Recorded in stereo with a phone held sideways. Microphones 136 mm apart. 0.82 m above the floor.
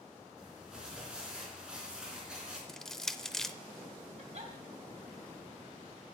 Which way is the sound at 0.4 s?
5° right (ahead or behind).